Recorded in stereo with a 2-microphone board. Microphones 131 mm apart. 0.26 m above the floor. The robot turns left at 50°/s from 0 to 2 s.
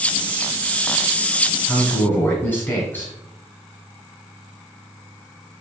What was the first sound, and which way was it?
A man speaking, 10° left (ahead or behind).